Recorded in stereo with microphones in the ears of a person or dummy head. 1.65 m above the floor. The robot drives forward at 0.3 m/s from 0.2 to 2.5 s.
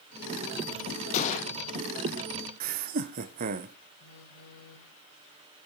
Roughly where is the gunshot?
Left.